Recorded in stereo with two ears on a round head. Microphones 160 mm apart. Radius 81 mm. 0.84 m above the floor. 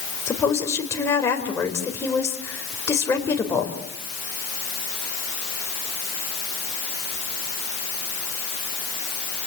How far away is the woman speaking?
About 4 m.